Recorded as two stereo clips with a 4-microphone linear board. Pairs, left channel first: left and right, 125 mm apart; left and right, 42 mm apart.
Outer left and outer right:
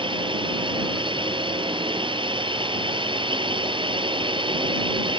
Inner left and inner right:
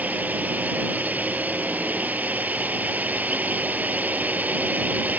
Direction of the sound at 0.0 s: 45° right (ahead or behind).